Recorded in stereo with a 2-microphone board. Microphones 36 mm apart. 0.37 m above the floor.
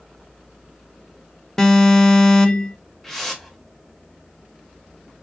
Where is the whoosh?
5° left (ahead or behind), 0.7 m.